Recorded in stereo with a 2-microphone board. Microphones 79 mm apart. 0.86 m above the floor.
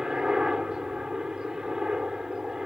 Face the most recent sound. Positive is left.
turn(degrees=-10)  # may be behind; listen again after turning